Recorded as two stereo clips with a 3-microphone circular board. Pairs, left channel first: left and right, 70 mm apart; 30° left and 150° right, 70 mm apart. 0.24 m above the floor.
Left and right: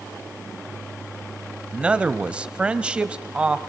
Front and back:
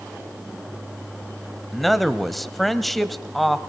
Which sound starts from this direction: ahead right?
A man speaking, at 1.7 s.